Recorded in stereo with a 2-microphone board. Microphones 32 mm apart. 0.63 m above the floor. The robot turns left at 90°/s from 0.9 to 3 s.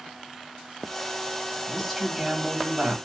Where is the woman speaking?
30° left, 1.6 m; by 3.0 s 85° right, 1.6 m.